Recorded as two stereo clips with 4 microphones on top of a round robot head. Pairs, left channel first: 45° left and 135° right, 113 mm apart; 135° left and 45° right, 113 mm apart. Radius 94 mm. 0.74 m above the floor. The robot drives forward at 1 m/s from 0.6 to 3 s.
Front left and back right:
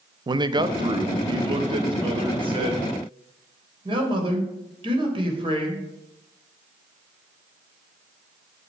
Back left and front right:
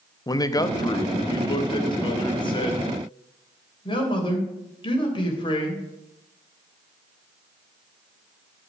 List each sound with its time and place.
0.3 s a man speaking: 175° right, 0.9 m; by 5.8 s straight behind, 3 m